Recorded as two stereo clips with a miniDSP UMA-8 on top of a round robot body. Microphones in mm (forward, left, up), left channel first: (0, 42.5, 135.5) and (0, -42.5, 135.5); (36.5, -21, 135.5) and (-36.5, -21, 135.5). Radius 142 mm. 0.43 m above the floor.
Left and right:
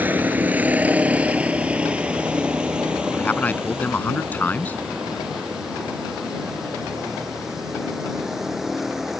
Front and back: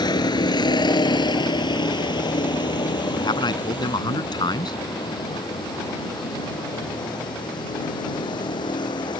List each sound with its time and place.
0.0 s a vehicle: 20° right; by 9.2 s 5° right
3.1 s a man speaking: 20° left